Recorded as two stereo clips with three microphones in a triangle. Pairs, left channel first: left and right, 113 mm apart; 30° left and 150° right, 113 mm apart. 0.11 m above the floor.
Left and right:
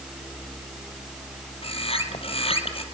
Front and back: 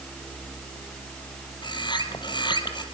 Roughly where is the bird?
Left.